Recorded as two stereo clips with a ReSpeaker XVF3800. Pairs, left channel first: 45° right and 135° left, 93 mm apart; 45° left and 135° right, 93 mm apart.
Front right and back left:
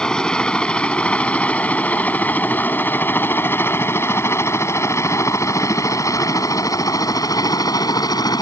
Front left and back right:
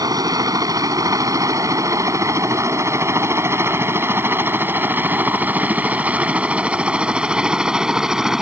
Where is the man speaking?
I don't hear a man speaking.